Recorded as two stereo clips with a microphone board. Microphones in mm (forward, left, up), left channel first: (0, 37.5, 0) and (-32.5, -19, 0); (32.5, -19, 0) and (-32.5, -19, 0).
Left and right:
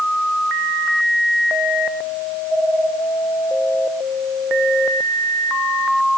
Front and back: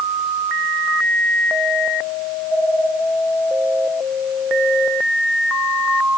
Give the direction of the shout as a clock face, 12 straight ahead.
I don't hear a shout.